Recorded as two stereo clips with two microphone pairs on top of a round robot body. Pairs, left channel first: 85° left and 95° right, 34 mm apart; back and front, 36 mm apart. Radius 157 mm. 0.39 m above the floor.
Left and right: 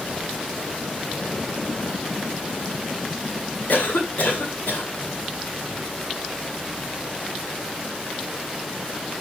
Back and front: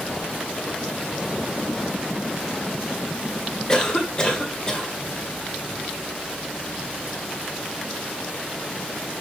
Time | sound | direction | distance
3.7 | a cough | 110° left | 2 m